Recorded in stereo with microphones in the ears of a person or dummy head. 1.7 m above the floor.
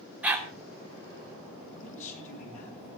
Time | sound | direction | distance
0.2 | a dog barking | 10° right (ahead or behind) | 3 m
1.6 | a man speaking | 40° left (ahead or behind) | 9 m